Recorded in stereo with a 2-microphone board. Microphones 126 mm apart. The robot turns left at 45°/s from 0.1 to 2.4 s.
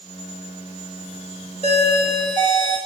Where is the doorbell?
95° right, 1.5 m; by 2.8 s 130° right, 1.5 m.